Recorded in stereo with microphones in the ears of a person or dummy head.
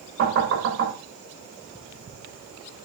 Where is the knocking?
75° right (ahead or behind), 5.5 m.